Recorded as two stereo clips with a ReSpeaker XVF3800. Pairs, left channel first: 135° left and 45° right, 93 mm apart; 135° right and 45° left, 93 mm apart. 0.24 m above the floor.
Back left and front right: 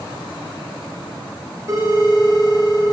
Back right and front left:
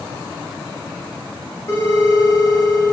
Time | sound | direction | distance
1.7 | a phone ringing | 85° right | 1.3 m